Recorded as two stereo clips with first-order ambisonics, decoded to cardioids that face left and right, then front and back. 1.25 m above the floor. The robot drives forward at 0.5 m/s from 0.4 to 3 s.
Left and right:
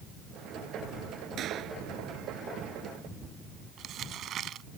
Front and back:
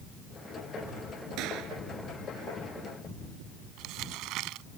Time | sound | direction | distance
1.4 | a gunshot | 145° right | ?
3.8 | crumpling | 145° right | ?